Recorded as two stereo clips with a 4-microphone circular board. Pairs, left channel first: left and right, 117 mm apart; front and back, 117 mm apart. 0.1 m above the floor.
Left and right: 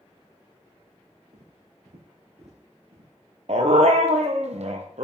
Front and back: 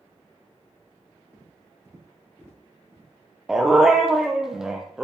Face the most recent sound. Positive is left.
turn(degrees=-95)